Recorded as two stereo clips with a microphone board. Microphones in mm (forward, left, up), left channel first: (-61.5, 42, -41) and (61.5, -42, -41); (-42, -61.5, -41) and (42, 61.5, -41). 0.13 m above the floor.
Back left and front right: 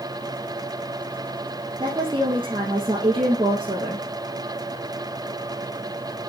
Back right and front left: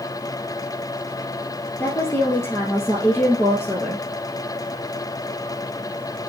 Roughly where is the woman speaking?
Ahead right.